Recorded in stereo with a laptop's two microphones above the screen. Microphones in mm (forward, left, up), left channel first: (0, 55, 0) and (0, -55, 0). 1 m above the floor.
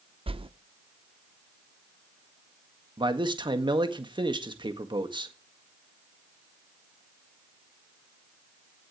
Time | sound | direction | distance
0.3 | a whoosh | 55° right (ahead or behind) | 0.7 m
3.0 | a man speaking | 45° right (ahead or behind) | 1.8 m